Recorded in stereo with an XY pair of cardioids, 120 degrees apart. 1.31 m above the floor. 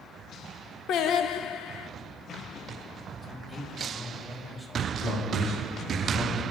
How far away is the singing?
About 0.7 m.